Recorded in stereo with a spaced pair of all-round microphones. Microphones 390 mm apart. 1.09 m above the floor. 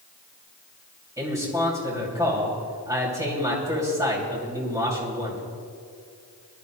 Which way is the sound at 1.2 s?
10° right (ahead or behind).